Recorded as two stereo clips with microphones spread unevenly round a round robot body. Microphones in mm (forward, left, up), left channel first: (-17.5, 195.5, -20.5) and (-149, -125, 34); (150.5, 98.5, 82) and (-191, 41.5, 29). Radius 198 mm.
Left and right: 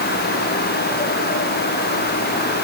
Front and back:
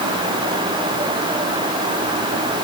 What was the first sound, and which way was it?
Only background noise.